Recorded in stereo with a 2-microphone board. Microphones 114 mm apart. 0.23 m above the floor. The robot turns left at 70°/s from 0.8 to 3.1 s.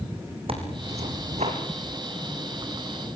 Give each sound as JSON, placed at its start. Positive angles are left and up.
{"t": 0.5, "sound": "tearing paper", "azimuth_deg": -55, "distance_m": 4.0}